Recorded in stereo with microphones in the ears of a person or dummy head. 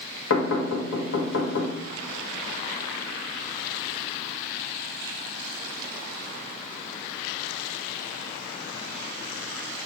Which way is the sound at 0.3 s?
80° left.